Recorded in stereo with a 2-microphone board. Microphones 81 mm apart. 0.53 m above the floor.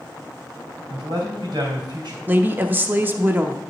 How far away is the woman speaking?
About 0.7 m.